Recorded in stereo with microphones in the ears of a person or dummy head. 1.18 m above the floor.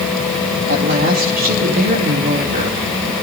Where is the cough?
I don't hear a cough.